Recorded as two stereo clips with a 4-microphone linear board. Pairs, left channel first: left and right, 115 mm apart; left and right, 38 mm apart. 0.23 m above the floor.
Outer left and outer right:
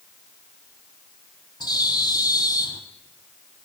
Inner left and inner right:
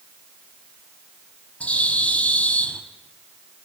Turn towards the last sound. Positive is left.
turn(degrees=35)  # may be behind; listen again after turning